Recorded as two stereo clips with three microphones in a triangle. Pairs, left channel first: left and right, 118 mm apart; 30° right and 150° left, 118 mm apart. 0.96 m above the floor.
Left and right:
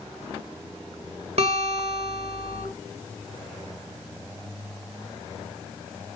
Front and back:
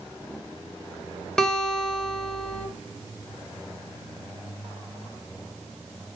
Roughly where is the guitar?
Behind right.